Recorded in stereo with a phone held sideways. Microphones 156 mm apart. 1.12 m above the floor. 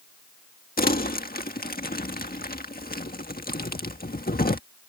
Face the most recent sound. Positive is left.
turn(degrees=75)  # may be behind; listen again after turning